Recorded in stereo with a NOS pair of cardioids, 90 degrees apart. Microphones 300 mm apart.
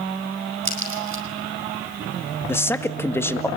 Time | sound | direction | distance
0.7 | a crack | 45° right | 5.5 m
2.5 | a man speaking | 5° left | 2 m